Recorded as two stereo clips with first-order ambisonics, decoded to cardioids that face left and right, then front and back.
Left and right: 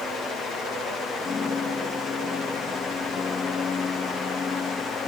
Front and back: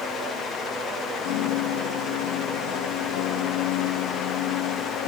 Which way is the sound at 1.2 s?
20° left.